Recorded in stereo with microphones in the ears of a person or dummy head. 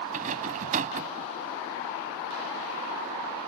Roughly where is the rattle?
Right.